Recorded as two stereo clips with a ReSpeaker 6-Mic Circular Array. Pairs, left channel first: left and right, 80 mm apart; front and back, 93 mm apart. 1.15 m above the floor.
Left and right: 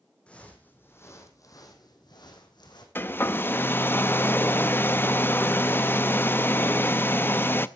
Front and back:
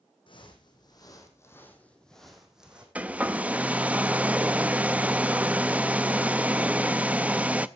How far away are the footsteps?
About 3 m.